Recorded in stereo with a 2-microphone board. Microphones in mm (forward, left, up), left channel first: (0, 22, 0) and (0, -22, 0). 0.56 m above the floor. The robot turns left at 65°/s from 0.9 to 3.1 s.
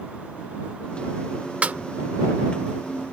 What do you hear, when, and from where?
1.6 s a snare drum: 30° right (ahead or behind); by 1.8 s 45° right (ahead or behind)